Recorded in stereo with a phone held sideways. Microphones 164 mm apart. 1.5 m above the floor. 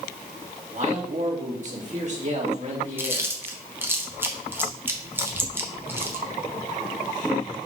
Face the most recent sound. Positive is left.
turn(degrees=-15)  # may be behind; listen again after turning